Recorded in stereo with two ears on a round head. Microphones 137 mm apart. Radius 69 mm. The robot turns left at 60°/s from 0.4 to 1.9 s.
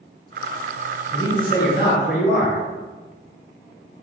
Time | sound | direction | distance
1.1 | a man speaking | 150° left | 1.7 m